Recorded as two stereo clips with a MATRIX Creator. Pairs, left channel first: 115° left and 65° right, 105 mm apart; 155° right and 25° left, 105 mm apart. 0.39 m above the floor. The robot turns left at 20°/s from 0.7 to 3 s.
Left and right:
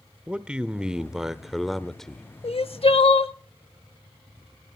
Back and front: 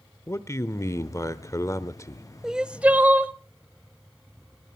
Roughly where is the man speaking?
Behind right.